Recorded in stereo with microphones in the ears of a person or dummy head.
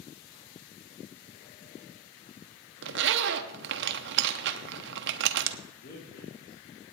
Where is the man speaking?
60° left (ahead or behind), 3.5 m.